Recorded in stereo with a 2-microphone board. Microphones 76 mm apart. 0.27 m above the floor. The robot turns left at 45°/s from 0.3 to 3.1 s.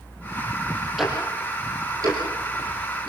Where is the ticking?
5° right (ahead or behind), 6 m; by 3.1 s 80° right, 6 m.